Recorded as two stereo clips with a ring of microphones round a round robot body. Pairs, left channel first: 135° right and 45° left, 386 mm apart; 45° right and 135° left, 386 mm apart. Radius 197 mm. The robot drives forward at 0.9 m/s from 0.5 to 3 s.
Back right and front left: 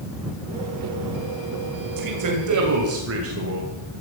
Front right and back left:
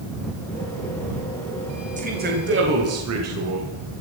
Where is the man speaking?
65° left, 2.5 m; by 3.7 s 95° left, 2.5 m.